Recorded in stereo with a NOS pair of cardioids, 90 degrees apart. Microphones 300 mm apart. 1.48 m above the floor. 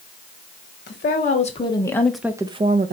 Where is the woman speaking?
35° left, 1.1 m; by 2.9 s 35° right, 0.7 m.